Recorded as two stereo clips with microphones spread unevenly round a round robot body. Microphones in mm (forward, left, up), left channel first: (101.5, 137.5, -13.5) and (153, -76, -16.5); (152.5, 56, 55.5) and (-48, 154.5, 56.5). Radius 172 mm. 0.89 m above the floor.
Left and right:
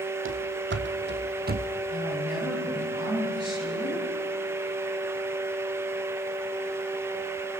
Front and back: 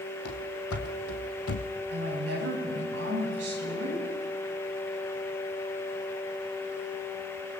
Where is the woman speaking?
155° right, 8.5 m.